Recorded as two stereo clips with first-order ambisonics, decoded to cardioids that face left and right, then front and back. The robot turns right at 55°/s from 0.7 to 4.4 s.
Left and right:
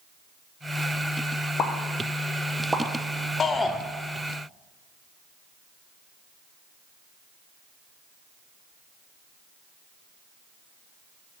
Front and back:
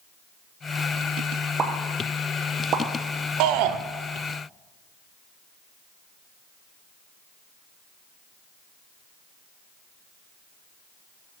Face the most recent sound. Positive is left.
turn(degrees=-150)